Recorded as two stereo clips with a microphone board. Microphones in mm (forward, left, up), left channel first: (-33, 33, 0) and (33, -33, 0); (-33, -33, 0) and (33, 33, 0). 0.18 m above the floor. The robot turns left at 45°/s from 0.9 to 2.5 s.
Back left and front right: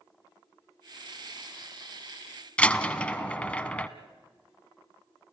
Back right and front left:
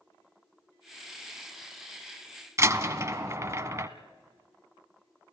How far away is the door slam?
About 0.9 m.